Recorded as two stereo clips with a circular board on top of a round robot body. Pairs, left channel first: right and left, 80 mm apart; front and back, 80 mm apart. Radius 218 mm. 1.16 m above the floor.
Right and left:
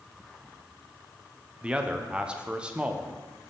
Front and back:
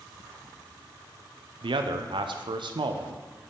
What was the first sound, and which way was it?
A man speaking, 170° left.